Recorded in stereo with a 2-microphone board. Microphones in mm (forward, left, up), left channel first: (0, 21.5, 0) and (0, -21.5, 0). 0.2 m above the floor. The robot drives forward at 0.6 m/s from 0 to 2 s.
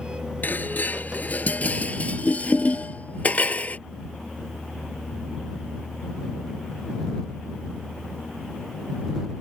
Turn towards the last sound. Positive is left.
turn(degrees=40)  # may be behind; listen again after turning